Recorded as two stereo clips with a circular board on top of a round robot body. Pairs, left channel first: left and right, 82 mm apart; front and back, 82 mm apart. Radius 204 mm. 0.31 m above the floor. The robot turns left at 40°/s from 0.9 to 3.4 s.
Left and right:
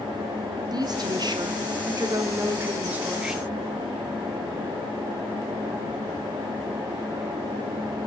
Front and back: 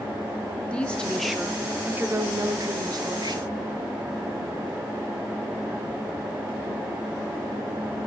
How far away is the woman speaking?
About 1.6 m.